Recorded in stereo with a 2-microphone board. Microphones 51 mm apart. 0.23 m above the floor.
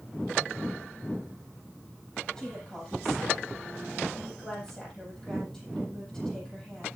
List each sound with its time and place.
2.4 s a woman speaking: 10° left (ahead or behind), 8.5 m